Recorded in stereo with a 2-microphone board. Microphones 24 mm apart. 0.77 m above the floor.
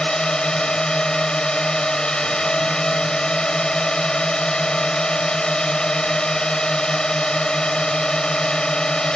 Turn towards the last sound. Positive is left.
turn(degrees=35)  # may be behind; listen again after turning